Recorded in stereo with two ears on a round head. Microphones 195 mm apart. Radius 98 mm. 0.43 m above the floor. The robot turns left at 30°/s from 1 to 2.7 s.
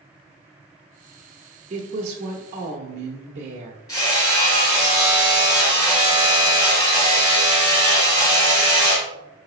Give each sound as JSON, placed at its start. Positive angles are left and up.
{"t": 1.7, "sound": "a woman speaking", "azimuth_deg": -60, "distance_m": 0.8}
{"t": 3.9, "sound": "hammering", "side_deg": 15, "distance_m": 1.9}